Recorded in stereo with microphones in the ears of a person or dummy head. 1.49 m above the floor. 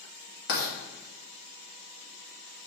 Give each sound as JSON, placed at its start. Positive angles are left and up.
{"t": 0.5, "sound": "writing", "side_deg": 60, "distance_m": 2.0}